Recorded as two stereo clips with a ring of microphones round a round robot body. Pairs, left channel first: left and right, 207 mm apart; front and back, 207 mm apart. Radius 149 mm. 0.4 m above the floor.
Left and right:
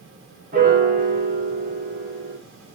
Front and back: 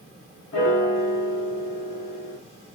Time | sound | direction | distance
0.5 | a piano | 40° right | 1.1 m